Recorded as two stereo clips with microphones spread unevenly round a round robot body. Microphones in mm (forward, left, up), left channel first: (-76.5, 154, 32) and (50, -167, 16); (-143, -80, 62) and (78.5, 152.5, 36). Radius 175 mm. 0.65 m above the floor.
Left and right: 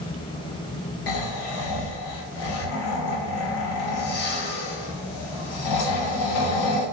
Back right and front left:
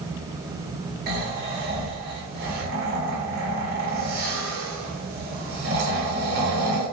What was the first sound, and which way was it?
Snoring, 110° left.